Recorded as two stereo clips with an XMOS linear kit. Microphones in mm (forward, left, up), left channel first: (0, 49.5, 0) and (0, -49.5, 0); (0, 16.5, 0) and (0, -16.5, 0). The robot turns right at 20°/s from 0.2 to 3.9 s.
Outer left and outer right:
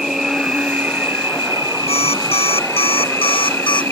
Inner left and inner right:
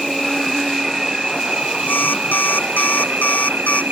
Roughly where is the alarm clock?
Left.